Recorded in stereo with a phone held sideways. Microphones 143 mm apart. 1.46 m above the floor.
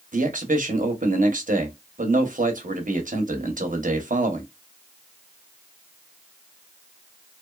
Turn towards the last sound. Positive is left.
turn(degrees=-65)  # may be behind; listen again after turning